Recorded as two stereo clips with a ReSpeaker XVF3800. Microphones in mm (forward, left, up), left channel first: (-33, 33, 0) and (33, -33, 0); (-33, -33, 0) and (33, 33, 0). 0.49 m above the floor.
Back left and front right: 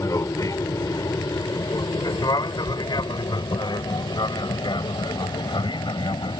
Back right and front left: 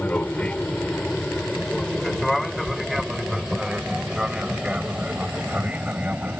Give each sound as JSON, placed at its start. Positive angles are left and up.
{"t": 0.0, "sound": "an aircraft", "azimuth_deg": 160}
{"t": 2.7, "sound": "chewing", "azimuth_deg": -30}